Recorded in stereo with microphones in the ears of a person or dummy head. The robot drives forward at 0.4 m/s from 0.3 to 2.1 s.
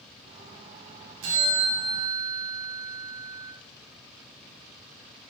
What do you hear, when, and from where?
1.2 s a bell: 75° right (ahead or behind), 3 m